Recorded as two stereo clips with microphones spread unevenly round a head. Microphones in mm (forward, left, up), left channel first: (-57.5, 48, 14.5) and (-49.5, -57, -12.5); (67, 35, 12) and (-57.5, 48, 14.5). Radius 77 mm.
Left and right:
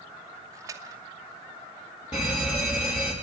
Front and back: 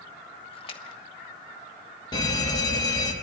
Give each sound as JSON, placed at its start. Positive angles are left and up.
{"t": 0.5, "sound": "a splash", "azimuth_deg": -40, "distance_m": 1.1}
{"t": 2.1, "sound": "a fire alarm", "azimuth_deg": 35, "distance_m": 2.5}